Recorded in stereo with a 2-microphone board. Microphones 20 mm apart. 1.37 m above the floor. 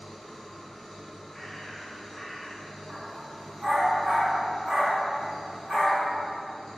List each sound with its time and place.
0.0 s an engine running: 30° left (ahead or behind), 1.8 m
1.3 s a bird: 20° left (ahead or behind), 0.6 m
2.9 s a dog barking: 30° right (ahead or behind), 0.9 m